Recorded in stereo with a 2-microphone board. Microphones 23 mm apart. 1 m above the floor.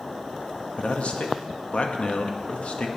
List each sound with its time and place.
0.8 s a man speaking: 65° left (ahead or behind), 1.3 m